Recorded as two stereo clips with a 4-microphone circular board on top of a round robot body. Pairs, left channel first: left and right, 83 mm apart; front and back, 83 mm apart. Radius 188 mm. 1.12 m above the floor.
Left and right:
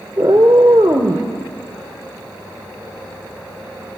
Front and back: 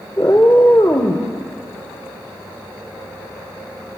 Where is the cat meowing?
50° right, 0.8 m.